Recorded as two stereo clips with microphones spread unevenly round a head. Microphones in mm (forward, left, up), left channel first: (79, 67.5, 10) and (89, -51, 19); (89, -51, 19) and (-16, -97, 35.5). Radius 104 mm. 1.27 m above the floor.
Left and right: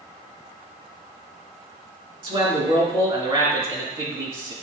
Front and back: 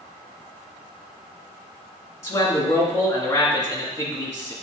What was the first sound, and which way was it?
A man speaking, 40° right.